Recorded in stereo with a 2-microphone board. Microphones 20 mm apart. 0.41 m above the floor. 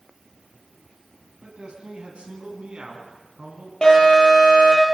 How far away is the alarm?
About 9.5 m.